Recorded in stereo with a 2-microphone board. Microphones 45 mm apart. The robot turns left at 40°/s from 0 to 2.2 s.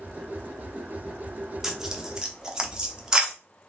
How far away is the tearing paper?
About 0.7 m.